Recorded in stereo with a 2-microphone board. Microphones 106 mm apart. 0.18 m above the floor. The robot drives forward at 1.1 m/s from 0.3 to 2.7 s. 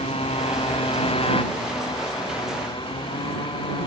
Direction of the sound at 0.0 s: 70° left (ahead or behind).